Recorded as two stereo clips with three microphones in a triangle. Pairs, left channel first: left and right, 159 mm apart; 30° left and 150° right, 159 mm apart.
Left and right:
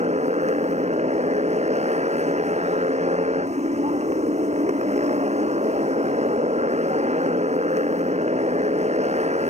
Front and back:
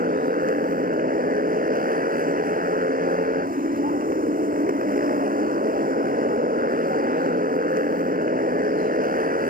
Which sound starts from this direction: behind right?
A motorcycle, at 0.0 s.